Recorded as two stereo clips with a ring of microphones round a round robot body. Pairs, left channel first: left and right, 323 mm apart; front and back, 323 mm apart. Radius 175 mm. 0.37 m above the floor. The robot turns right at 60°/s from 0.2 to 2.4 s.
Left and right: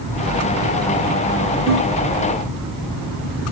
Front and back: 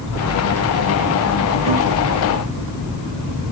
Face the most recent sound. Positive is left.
turn(degrees=155)